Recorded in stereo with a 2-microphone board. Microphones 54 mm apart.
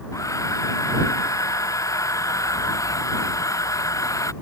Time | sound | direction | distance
0.1 | a hair dryer | 85° left | ?